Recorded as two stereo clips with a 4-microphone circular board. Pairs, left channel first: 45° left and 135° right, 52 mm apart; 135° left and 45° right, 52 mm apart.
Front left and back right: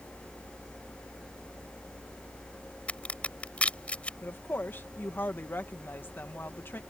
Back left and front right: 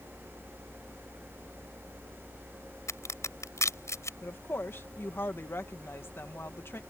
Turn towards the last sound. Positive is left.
turn(degrees=95)